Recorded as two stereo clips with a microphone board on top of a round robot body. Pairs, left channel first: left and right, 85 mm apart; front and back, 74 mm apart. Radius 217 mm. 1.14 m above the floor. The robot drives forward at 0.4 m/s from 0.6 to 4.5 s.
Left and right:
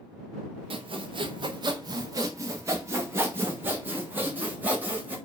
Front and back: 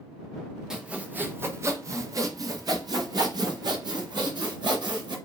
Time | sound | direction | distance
0.7 | sawing | 100° right | 0.6 m